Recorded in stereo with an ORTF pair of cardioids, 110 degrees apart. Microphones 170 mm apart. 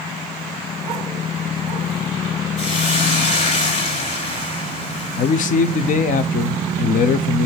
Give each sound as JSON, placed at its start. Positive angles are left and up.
{"t": 2.6, "sound": "a hiss", "azimuth_deg": 45, "distance_m": 3.0}
{"t": 5.2, "sound": "a man speaking", "azimuth_deg": 55, "distance_m": 0.9}